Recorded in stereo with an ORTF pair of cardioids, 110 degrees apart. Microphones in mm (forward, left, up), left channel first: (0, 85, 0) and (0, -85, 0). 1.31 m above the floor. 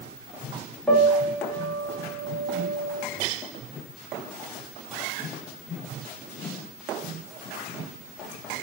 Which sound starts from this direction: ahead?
A piano, at 0.9 s.